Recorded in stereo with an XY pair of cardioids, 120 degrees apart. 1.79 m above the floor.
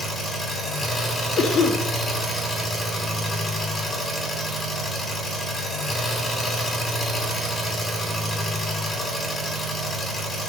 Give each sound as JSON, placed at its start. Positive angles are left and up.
{"t": 0.0, "sound": "an engine running", "azimuth_deg": 10, "distance_m": 5.0}
{"t": 1.4, "sound": "a cough", "azimuth_deg": 40, "distance_m": 3.0}